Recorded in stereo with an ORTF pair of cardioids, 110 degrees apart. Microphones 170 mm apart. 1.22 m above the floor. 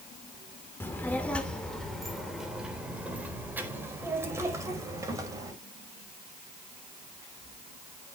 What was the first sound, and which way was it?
A child speaking, 10° left.